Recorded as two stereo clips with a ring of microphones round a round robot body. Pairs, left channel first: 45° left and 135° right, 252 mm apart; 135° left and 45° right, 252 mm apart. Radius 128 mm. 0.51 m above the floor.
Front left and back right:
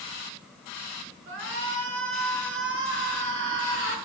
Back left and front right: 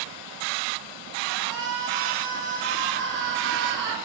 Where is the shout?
90° right, 6 m.